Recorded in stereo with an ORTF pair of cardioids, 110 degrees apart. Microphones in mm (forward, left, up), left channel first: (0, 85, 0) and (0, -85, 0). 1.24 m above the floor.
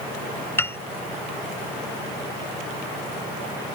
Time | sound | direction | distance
0.6 | a piano | 15° left | ?